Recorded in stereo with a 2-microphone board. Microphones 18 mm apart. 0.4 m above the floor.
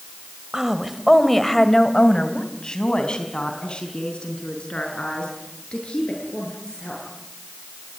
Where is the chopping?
I don't hear chopping.